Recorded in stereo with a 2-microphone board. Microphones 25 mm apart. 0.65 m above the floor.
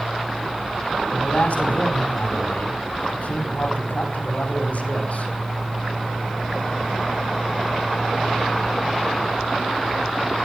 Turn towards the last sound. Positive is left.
turn(degrees=80)